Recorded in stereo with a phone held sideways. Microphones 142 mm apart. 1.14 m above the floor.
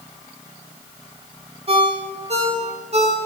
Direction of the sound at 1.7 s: 45° right (ahead or behind).